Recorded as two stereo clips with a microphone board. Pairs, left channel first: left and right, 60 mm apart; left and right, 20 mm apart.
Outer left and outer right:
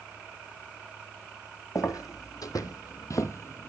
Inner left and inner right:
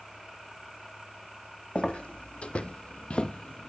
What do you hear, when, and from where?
1.8 s footsteps: 70° left (ahead or behind), 1.1 m; by 3.7 s 40° left (ahead or behind), 0.6 m